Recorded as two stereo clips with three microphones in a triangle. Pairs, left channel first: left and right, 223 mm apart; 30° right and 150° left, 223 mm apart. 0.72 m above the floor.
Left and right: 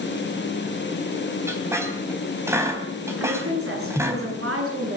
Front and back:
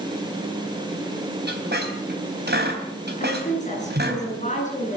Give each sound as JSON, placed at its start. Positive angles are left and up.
{"t": 1.5, "sound": "a squeak", "azimuth_deg": -170, "distance_m": 3.5}
{"t": 3.2, "sound": "a woman speaking", "azimuth_deg": -85, "distance_m": 10.0}